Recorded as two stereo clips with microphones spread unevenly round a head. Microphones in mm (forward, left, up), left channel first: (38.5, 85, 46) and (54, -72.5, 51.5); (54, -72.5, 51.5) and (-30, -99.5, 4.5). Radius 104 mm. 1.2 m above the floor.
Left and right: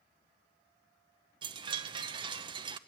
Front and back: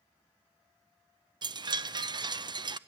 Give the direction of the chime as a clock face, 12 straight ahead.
5 o'clock.